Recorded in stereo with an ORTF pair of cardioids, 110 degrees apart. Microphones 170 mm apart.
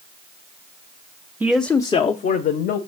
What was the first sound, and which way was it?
A man speaking, 10° right.